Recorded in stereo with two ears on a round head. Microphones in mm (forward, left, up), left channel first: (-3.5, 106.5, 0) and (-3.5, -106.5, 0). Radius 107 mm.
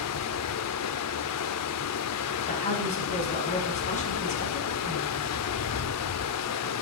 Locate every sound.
0.0 s running water: 70° left (ahead or behind), 0.7 m
2.5 s a woman speaking: 30° left (ahead or behind), 6 m